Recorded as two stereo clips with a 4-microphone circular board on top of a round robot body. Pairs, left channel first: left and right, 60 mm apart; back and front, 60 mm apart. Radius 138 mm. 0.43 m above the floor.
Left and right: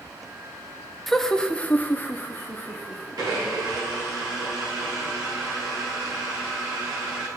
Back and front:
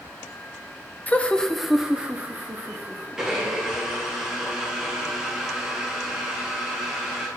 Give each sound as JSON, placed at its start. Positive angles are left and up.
{"t": 1.1, "sound": "laughter", "azimuth_deg": 175, "distance_m": 0.7}
{"t": 3.2, "sound": "a blender", "azimuth_deg": -80, "distance_m": 1.9}